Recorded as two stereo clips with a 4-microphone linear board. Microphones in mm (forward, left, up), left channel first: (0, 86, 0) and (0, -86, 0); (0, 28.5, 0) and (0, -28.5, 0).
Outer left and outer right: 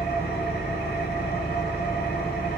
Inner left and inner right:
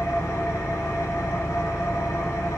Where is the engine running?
60° left (ahead or behind), 0.8 m.